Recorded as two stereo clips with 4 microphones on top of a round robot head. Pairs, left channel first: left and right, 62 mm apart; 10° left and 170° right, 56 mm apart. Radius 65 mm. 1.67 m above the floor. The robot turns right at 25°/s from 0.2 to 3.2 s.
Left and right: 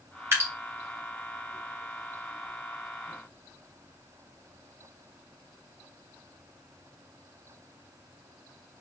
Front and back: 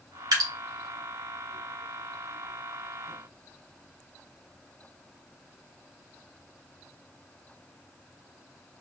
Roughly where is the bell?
I don't hear a bell.